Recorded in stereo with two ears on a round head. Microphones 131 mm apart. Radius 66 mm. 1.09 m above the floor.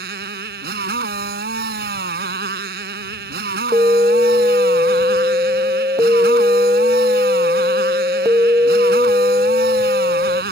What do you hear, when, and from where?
0.0 s a motorcycle: 70° right (ahead or behind)
3.7 s an alarm: 20° right (ahead or behind)